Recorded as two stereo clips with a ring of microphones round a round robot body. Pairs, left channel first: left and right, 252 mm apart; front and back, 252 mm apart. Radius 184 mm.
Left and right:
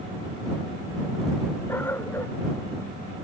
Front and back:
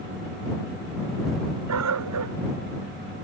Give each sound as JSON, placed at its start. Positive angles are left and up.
{"t": 1.7, "sound": "a dog barking", "azimuth_deg": 175}